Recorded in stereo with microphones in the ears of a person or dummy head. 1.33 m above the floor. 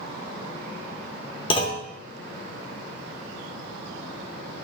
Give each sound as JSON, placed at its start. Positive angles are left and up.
{"t": 1.5, "sound": "a clunk", "side_deg": 30, "distance_m": 0.5}